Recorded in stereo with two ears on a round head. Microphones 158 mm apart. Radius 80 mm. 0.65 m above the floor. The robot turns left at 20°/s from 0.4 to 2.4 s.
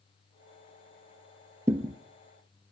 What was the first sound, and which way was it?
A thud, 15° right (ahead or behind).